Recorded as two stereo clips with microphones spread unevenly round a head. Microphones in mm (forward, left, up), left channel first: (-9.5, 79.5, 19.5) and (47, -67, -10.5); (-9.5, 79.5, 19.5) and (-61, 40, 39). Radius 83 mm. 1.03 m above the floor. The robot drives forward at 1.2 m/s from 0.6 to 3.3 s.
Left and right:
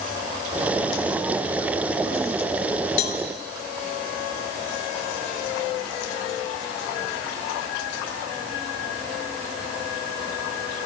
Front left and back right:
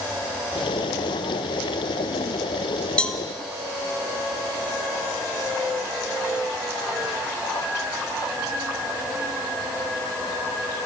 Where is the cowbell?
120° left, 1.8 m; by 3.2 s 125° left, 2.0 m.